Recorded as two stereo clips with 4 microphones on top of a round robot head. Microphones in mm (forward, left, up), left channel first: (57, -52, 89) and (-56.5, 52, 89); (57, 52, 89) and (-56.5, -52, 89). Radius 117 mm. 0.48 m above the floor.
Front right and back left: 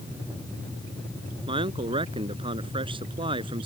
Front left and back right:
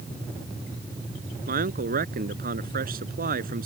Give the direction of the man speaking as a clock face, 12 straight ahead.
5 o'clock.